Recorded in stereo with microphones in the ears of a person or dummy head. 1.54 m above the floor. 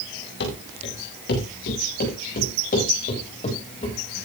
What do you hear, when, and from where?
0.4 s running footsteps: 65° left (ahead or behind), 9.5 m; by 3.9 s 35° left (ahead or behind), 10 m